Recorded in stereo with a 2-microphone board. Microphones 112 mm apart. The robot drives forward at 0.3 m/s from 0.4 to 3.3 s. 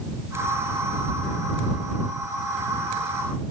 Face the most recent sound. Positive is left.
No sound to turn to.